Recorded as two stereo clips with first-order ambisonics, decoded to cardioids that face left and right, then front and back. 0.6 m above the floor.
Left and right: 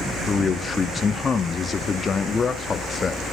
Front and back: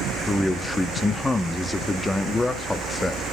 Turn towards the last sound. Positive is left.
turn(degrees=65)